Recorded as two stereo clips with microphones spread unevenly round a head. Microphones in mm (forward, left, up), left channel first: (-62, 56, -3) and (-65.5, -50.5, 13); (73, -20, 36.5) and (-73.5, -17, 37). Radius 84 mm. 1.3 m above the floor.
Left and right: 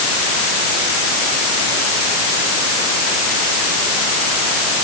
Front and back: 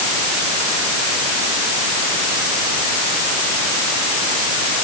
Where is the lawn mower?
I don't hear a lawn mower.